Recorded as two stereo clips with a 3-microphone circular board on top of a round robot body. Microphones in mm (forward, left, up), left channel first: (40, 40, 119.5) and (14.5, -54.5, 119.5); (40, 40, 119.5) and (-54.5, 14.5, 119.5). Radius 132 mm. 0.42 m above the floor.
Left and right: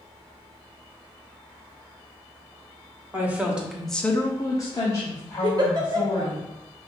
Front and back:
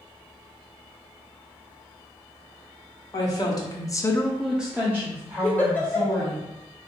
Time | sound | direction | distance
3.1 | a woman speaking | 35° right | 1.7 m
5.4 | a giggle | 60° right | 1.1 m